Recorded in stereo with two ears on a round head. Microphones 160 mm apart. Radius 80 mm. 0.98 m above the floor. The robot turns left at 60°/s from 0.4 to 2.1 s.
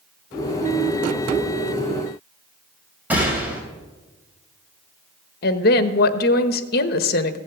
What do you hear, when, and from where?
3.1 s a gunshot: 10° right (ahead or behind), 3 m
5.4 s a woman speaking: 60° left (ahead or behind), 1.1 m